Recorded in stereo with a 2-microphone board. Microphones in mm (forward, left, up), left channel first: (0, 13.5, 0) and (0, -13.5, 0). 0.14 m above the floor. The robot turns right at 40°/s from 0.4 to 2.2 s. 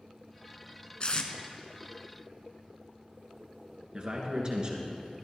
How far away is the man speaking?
About 2 m.